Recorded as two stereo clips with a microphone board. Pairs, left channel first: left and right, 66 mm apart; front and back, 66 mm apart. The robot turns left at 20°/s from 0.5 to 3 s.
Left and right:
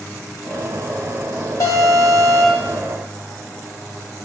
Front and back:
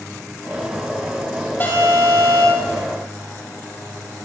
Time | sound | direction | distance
1.6 | an alarm | 60° left | 4.5 m